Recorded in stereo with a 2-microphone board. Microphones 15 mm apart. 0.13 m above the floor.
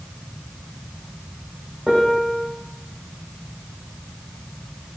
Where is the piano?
65° right (ahead or behind), 5 m.